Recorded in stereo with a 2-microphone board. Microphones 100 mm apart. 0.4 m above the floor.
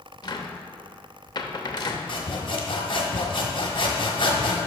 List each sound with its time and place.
0.2 s a cupboard door: 45° left (ahead or behind), 0.8 m
2.1 s sawing: 55° left (ahead or behind), 1.3 m